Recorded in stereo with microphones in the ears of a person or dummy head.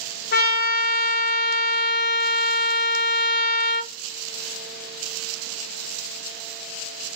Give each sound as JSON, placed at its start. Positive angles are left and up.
{"t": 0.3, "sound": "a trumpet", "side_deg": 55, "distance_m": 0.8}